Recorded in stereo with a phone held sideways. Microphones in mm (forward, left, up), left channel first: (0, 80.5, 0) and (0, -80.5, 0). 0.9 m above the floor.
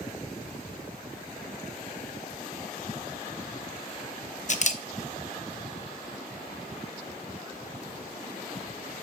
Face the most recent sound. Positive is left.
turn(degrees=50)  # may be behind; listen again after turning